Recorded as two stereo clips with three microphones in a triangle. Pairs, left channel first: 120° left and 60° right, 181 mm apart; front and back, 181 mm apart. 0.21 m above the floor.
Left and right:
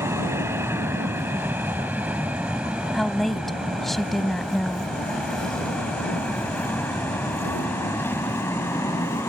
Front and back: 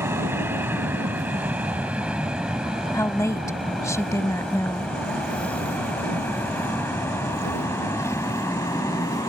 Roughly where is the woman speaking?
Ahead left.